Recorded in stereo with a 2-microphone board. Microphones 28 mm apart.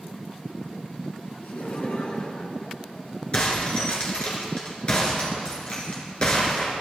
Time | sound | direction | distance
1.4 | laughter | 75° left (ahead or behind) | 3 m
3.3 | breaking glass | 40° left (ahead or behind) | 3.5 m